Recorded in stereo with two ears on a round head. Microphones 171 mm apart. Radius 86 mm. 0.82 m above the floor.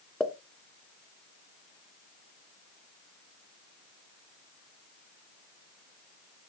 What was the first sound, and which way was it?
A pop, 5° left (ahead or behind).